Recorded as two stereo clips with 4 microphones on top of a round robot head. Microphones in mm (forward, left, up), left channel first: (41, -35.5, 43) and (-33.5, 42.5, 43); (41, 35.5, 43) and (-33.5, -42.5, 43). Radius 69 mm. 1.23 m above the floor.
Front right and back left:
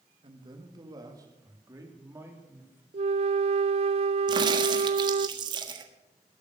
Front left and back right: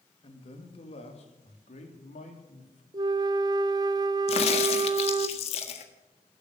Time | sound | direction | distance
0.2 | a man speaking | 90° left | 2.5 m
2.9 | a flute | 170° left | 0.5 m
4.3 | a crack | 85° left | 1.5 m